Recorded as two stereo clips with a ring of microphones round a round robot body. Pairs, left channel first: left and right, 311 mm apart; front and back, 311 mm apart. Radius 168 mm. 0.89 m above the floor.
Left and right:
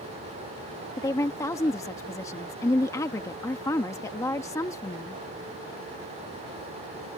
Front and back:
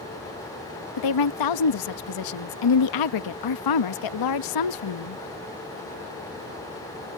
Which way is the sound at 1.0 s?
10° left.